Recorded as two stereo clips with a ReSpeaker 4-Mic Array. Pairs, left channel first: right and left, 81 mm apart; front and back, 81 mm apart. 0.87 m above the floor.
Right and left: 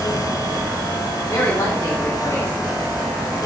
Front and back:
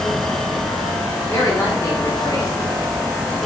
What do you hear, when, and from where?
1.3 s a woman speaking: 45° right, 2 m